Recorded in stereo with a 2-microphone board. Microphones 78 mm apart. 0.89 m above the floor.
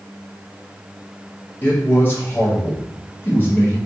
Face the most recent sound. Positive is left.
turn(degrees=25)  # may be behind; listen again after turning